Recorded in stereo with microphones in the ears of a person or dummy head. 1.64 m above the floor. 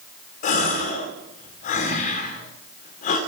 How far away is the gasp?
About 2 m.